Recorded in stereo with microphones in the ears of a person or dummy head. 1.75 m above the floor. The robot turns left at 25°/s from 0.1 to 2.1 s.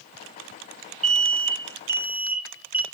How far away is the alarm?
About 0.8 m.